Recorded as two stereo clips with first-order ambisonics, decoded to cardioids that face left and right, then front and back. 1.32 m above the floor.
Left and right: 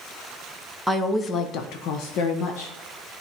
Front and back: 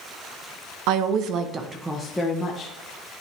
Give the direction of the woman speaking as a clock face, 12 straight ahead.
6 o'clock.